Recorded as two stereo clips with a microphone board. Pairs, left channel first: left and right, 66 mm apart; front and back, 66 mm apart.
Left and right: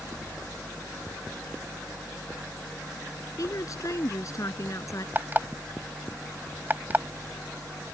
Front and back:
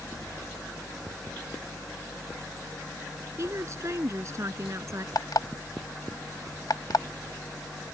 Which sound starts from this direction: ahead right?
An alarm clock, at 5.2 s.